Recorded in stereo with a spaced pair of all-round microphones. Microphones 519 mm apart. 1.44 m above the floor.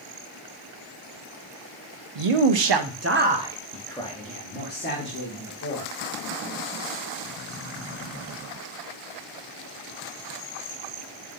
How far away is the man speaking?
About 0.6 m.